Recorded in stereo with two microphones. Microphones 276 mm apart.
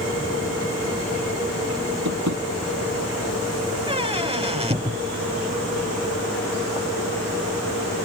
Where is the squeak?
20° right (ahead or behind).